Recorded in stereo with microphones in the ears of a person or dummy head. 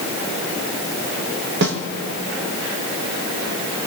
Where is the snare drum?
70° right (ahead or behind), 1.4 m.